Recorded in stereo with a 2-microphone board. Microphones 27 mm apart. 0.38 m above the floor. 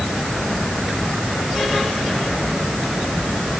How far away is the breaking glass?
I don't hear breaking glass.